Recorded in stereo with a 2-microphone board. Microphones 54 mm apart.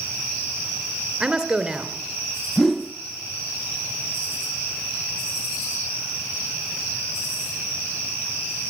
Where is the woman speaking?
10° right (ahead or behind), 2.5 m.